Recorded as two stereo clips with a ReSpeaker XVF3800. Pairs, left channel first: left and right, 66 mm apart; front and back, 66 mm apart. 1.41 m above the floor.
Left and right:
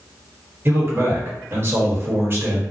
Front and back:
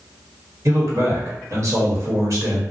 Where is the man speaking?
145° right, 1.1 m.